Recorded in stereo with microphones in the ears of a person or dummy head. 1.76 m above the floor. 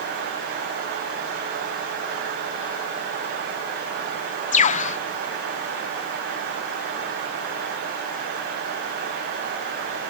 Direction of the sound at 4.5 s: 35° left (ahead or behind).